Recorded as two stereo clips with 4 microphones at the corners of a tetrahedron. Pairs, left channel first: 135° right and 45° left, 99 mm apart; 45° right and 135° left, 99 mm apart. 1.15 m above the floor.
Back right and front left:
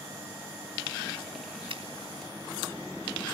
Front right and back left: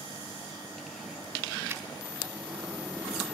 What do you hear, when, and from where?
1.7 s a finger snap: 65° left, 3 m